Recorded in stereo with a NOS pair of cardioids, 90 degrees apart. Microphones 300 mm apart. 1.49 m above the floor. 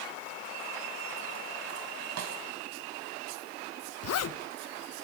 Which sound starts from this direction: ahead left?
A zipper, at 4.0 s.